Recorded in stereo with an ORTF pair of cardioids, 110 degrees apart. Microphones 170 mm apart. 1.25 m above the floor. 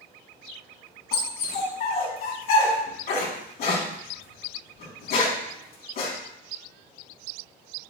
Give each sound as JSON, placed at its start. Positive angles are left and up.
{"t": 1.1, "sound": "a dog barking", "azimuth_deg": 70, "distance_m": 3.0}